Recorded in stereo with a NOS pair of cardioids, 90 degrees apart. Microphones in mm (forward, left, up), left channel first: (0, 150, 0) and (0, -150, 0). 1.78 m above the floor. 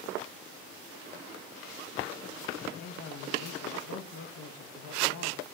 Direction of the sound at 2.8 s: 70° left.